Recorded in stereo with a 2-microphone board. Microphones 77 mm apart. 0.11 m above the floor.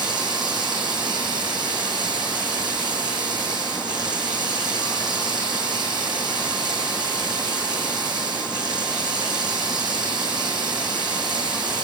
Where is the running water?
75° right (ahead or behind), 5.5 m.